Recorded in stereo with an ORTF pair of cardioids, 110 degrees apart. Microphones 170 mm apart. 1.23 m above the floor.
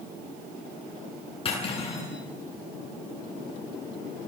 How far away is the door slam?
I don't hear a door slam.